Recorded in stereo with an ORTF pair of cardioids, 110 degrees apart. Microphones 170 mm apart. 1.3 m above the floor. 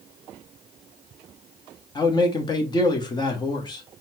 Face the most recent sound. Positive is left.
turn(degrees=25)